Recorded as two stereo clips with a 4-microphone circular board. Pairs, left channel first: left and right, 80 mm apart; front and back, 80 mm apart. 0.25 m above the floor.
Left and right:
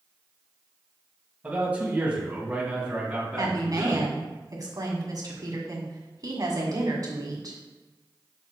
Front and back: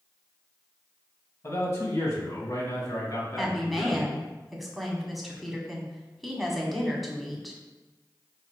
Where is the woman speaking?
90° right, 1.6 m.